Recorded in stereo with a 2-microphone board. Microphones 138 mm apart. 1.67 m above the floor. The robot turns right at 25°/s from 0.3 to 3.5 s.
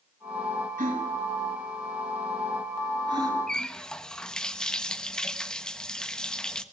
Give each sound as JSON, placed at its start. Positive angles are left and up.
{"t": 0.8, "sound": "a gasp", "side_deg": -80, "distance_m": 6.5}
{"t": 3.5, "sound": "a running tap", "side_deg": 5, "distance_m": 1.2}